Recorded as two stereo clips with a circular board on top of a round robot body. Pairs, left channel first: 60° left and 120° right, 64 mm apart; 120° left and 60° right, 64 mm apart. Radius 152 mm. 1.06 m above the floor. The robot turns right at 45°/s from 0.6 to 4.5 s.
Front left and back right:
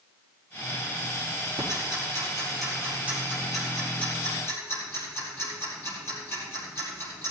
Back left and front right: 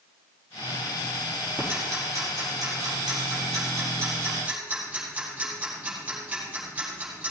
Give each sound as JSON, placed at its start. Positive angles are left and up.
{"t": 1.6, "sound": "ticking", "azimuth_deg": -120, "distance_m": 5.0}